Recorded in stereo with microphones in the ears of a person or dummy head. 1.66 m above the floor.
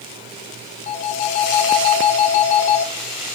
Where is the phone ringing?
35° left (ahead or behind), 0.8 m.